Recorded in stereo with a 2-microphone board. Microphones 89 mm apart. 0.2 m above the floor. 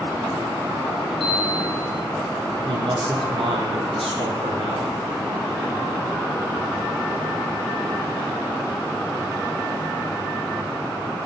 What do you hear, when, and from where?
1.2 s a chime: 70° right (ahead or behind), 8.5 m
2.6 s a man speaking: 80° right, 7.5 m